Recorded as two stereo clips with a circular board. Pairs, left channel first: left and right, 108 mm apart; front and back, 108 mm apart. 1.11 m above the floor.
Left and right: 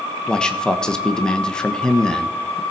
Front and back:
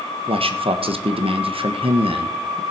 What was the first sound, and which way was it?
A man speaking, 170° left.